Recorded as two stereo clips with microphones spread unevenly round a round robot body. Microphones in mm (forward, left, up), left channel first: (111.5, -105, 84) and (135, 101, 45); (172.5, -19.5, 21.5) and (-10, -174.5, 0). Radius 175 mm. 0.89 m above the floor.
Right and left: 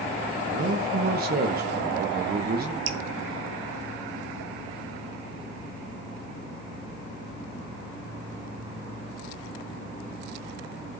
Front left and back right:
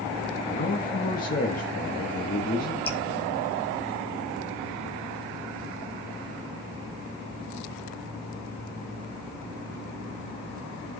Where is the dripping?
120° left, 0.7 m.